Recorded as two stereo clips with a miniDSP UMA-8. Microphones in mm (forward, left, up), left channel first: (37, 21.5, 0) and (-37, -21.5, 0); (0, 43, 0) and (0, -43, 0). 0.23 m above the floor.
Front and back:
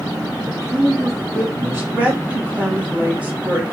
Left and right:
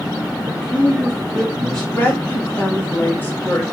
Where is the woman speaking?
145° left, 1.3 m.